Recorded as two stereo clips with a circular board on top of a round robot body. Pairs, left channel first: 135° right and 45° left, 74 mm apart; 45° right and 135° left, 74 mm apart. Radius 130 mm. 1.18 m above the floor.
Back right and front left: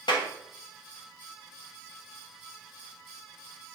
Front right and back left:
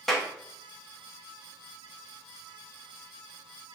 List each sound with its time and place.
0.1 s a clap: 135° right, 1.8 m